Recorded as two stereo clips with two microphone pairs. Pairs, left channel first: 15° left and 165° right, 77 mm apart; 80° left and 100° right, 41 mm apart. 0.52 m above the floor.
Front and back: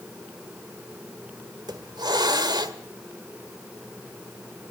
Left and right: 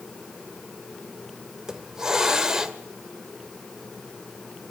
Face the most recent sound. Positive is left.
turn(degrees=-170)